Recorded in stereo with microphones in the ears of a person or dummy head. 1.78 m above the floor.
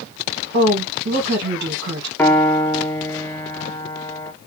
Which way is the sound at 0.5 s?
65° right (ahead or behind).